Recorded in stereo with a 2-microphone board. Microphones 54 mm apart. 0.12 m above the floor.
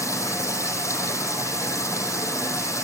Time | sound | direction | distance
0.0 | running water | 70° left (ahead or behind) | 5 m